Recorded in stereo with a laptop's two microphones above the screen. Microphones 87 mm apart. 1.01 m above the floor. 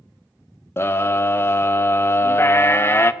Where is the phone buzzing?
I don't hear a phone buzzing.